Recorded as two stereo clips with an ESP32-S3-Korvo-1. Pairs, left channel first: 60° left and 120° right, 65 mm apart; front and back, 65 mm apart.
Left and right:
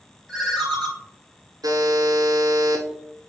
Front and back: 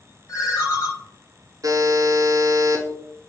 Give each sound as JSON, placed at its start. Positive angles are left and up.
{"t": 0.3, "sound": "a ringtone", "azimuth_deg": -20, "distance_m": 1.4}
{"t": 1.6, "sound": "a buzzer", "azimuth_deg": -145, "distance_m": 0.7}